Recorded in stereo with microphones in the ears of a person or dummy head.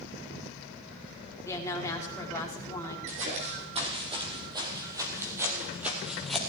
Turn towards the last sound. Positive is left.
turn(degrees=0)  # may be behind; listen again after turning